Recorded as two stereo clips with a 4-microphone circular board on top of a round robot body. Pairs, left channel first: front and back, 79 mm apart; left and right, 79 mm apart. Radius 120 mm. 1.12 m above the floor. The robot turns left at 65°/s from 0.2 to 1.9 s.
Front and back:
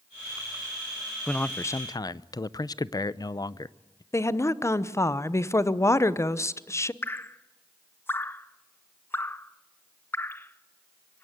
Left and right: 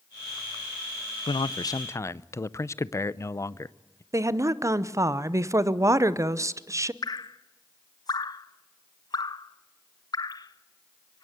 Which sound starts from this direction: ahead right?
A woman speaking, at 4.1 s.